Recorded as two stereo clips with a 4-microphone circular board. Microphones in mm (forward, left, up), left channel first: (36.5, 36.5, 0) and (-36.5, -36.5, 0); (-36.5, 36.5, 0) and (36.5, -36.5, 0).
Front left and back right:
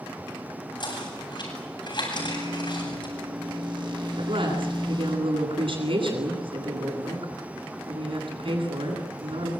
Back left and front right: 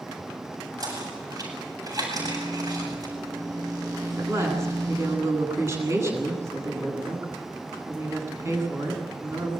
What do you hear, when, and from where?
0.8 s knocking: 5° left, 8.5 m
2.1 s a microwave: 95° right, 8.5 m
4.2 s a woman speaking: 110° right, 10 m